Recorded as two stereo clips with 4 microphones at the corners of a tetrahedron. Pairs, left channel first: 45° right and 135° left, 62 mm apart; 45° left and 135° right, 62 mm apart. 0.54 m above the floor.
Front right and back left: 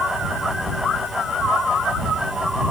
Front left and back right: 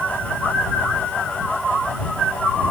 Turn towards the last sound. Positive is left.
No sound to turn to.